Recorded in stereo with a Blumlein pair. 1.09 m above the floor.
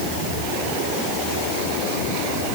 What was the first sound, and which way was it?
Only background noise.